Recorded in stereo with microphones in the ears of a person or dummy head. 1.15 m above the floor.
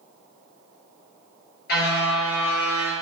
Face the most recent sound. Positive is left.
turn(degrees=70)  # may be behind; listen again after turning